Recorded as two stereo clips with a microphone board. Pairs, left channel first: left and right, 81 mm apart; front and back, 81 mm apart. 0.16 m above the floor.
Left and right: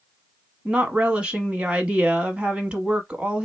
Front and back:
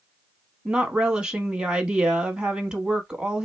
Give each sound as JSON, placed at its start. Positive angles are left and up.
{"t": 0.7, "sound": "a woman speaking", "azimuth_deg": -125, "distance_m": 1.0}